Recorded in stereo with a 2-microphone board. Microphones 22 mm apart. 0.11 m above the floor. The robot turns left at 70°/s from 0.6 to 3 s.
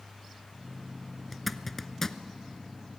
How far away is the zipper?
About 0.7 m.